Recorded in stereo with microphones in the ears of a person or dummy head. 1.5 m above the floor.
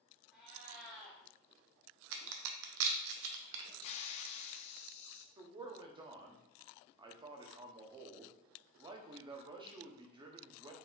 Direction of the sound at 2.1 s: 70° right (ahead or behind).